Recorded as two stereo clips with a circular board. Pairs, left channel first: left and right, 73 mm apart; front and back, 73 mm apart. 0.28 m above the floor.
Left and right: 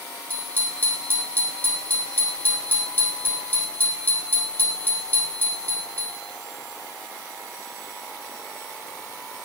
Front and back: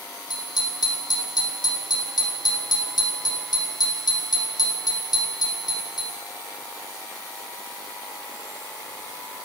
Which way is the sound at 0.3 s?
25° left.